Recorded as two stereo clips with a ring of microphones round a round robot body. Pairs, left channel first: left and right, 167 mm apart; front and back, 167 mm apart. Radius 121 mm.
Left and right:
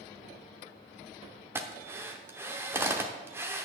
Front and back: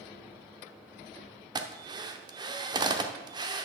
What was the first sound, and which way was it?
A drill, 150° right.